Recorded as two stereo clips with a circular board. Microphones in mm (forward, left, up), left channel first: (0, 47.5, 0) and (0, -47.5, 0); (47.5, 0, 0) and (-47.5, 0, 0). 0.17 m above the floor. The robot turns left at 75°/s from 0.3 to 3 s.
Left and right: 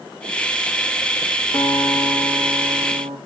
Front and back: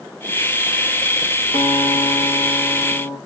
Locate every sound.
1.5 s a guitar: 35° left, 2.0 m; by 3.2 s 75° right, 2.0 m